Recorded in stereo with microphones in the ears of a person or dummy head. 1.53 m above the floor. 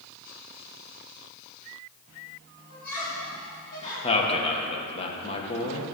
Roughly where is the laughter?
Left.